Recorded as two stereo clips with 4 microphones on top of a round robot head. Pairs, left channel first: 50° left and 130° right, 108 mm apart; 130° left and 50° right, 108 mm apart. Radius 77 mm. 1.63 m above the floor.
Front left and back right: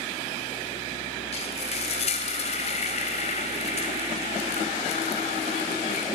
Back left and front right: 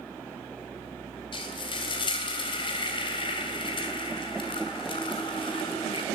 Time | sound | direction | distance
1.3 | frying | 85° left | 3 m